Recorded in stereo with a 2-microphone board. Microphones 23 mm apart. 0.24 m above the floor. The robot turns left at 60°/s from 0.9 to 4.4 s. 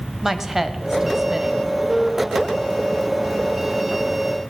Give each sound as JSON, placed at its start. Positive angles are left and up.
{"t": 0.2, "sound": "a woman speaking", "side_deg": -20, "distance_m": 0.9}